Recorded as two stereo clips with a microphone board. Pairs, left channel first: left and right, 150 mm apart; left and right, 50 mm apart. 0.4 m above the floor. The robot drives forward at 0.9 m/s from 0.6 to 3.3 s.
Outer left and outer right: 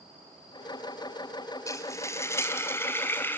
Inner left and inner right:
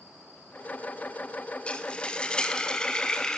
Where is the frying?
20° left (ahead or behind), 3 m; by 3.4 s 15° left (ahead or behind), 4 m.